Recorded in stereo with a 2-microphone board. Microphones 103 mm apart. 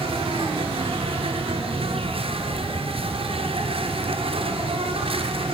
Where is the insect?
65° right (ahead or behind), 2.5 m.